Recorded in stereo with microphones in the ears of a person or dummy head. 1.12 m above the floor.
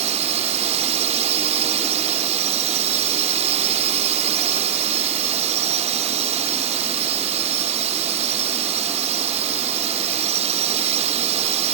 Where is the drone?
30° right (ahead or behind).